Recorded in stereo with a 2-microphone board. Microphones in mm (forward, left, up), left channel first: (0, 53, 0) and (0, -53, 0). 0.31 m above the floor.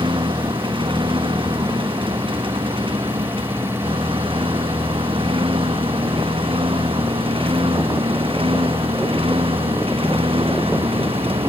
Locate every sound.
0.0 s a lawn mower: 55° right (ahead or behind); by 11.5 s 65° right (ahead or behind)